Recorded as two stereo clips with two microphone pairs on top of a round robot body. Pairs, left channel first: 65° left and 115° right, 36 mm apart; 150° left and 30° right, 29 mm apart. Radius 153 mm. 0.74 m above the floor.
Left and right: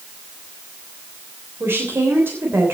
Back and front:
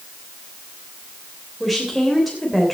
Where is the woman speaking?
120° right, 3.5 m.